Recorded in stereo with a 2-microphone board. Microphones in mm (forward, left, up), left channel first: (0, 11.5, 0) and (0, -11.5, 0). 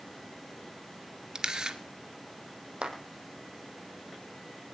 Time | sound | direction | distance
1.4 | a camera shutter | 35° right (ahead or behind) | 1.8 m
2.8 | a clap | 50° right (ahead or behind) | 4.5 m